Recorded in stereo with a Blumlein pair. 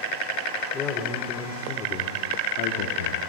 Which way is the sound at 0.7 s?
20° left.